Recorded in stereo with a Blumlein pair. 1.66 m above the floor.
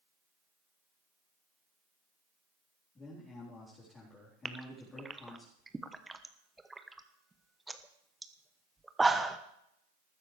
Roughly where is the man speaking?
Ahead.